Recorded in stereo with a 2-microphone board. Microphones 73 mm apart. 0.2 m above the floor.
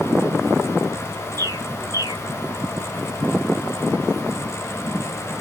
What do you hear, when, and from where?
1.4 s a bird: 50° right (ahead or behind), 1.3 m